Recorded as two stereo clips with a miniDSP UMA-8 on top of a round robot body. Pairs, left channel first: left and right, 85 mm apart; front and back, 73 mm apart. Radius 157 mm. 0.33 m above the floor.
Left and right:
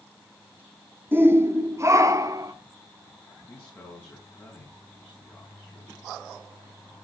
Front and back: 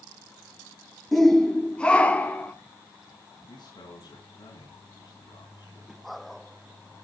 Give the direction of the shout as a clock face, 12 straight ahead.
3 o'clock.